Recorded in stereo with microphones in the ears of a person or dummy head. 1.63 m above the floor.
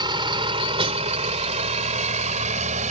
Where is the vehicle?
25° right (ahead or behind); by 2.9 s 40° right (ahead or behind).